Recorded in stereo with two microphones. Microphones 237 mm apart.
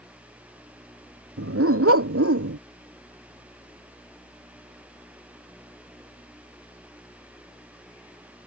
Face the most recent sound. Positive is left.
turn(degrees=-75)  # may be behind; listen again after turning